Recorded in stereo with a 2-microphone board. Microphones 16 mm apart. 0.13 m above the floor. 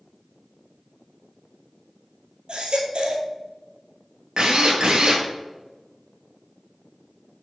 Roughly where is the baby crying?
Right.